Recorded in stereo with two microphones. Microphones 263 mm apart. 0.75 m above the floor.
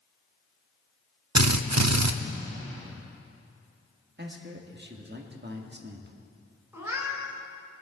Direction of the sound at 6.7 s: 5° right (ahead or behind).